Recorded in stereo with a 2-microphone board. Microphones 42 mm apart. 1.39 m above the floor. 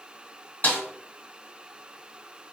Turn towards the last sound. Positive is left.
turn(degrees=45)  # may be behind; listen again after turning